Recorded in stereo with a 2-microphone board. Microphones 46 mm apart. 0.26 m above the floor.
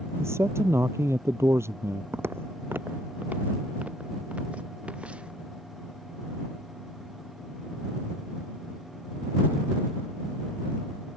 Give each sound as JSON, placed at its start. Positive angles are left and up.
{"t": 0.2, "sound": "a man speaking", "side_deg": -80}
{"t": 2.1, "sound": "footsteps", "side_deg": -65}